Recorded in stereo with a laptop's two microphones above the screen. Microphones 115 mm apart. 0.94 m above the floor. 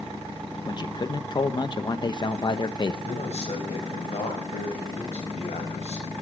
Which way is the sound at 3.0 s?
70° left (ahead or behind).